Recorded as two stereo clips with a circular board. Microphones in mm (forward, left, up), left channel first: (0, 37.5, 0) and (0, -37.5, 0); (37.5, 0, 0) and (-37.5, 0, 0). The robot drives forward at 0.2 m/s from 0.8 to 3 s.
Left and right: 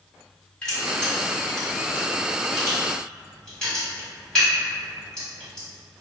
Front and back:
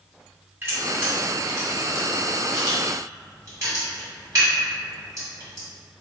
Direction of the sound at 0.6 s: 160° left.